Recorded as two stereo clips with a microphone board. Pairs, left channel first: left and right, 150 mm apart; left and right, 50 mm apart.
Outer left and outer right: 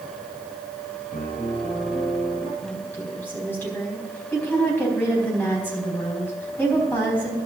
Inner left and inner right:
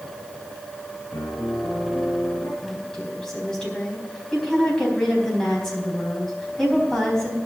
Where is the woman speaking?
10° left (ahead or behind), 4 m.